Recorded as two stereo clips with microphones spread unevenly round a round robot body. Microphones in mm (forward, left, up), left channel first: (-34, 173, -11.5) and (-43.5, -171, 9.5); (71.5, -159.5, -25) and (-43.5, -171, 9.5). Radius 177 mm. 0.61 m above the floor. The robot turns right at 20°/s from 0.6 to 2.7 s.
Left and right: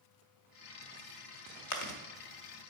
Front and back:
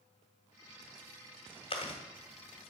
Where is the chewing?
50° left, 0.8 m; by 2.0 s 55° left, 0.8 m.